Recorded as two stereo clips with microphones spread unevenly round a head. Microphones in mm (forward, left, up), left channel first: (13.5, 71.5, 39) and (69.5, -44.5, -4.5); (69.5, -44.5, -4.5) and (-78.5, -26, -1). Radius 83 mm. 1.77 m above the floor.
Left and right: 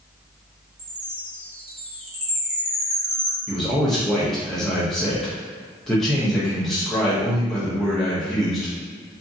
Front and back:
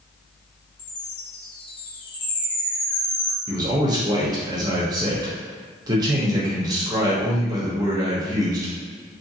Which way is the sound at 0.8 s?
35° right.